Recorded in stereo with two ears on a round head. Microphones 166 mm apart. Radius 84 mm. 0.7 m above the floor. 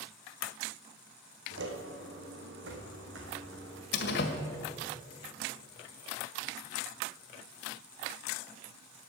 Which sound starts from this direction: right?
Footsteps, at 1.5 s.